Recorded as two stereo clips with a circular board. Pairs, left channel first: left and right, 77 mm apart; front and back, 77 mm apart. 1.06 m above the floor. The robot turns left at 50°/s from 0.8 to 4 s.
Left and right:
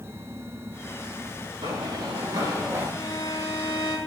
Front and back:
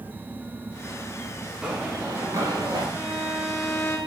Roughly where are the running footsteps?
Right.